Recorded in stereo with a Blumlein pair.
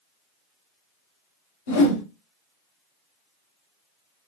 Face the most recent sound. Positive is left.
turn(degrees=60)